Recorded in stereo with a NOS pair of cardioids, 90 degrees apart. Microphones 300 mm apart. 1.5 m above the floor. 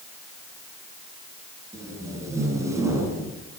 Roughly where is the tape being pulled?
Ahead.